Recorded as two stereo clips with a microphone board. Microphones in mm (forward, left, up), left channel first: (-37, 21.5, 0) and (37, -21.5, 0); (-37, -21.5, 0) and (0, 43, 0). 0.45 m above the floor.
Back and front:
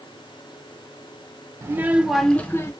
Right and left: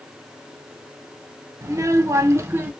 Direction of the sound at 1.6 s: 20° left.